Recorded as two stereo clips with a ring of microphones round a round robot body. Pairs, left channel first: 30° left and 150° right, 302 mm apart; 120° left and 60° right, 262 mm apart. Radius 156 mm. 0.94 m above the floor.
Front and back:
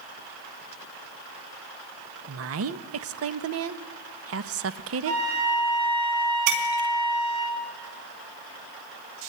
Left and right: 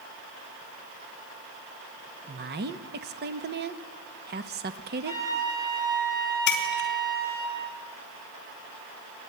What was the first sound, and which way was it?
A woman speaking, 110° right.